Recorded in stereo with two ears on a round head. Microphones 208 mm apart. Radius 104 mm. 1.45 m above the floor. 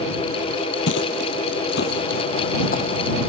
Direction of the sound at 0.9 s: 55° left (ahead or behind).